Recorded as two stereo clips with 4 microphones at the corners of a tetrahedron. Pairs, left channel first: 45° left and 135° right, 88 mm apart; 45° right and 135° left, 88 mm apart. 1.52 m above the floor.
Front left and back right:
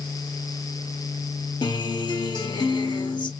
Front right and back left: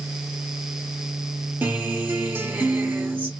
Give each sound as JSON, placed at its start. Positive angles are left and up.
{"t": 1.6, "sound": "a guitar", "azimuth_deg": 70, "distance_m": 0.8}